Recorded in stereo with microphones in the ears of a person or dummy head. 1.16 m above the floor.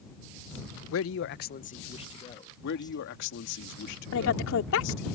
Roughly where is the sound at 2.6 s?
Left.